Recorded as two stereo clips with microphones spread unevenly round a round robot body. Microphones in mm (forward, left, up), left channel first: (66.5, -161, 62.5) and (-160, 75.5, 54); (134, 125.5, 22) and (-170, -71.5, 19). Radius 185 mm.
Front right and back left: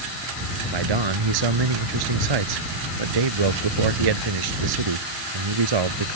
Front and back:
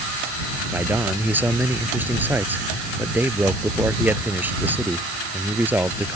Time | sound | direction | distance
0.7 | a man speaking | 130° left | ?